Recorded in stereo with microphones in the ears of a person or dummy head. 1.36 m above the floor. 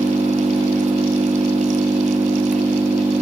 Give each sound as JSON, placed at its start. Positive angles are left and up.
{"t": 0.0, "sound": "an engine running", "side_deg": -5, "distance_m": 1.5}